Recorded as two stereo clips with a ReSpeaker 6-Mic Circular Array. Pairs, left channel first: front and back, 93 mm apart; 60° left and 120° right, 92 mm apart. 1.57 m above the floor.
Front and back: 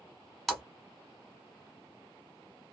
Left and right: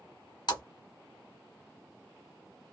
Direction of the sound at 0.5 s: 85° left.